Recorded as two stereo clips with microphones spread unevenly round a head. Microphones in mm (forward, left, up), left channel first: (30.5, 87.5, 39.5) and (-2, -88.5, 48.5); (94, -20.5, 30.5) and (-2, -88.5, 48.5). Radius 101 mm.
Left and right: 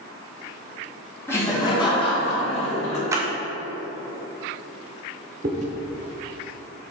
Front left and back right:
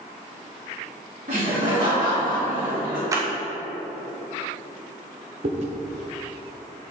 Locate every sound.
1.3 s laughter: 160° left, 2 m; by 3.0 s 135° left, 3 m
3.1 s a clap: 160° right, 0.7 m
5.4 s chewing: 150° right, 0.7 m